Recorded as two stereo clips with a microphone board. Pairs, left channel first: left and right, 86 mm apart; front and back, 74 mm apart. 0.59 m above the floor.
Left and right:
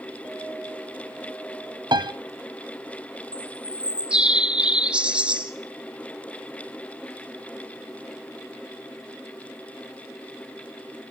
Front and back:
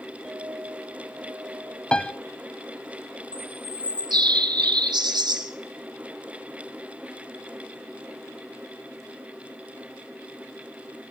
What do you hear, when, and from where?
0.2 s a clink: 105° left, 7 m
1.9 s a piano: 75° right, 0.8 m
3.3 s a bird: 170° right, 1.3 m